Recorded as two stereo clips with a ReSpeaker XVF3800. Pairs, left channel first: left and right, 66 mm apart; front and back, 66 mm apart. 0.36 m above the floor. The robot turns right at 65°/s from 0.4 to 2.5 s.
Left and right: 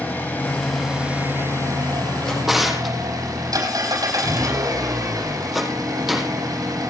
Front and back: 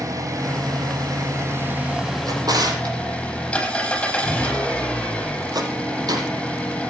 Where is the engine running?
150° left, 7 m; by 6.9 s 75° right, 7 m.